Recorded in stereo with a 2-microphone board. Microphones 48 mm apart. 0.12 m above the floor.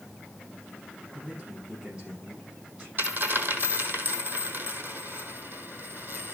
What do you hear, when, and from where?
1.1 s a man speaking: 30° right (ahead or behind), 6 m
3.0 s a dropped coin: 50° right (ahead or behind), 1.3 m